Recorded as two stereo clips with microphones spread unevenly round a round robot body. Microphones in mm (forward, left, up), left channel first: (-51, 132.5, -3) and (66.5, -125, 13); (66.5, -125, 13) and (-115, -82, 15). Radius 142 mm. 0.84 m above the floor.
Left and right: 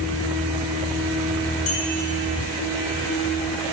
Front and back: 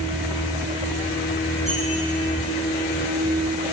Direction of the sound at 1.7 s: 80° left.